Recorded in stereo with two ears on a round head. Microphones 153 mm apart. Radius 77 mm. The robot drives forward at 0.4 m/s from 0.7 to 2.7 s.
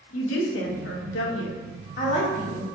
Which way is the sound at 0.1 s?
90° left.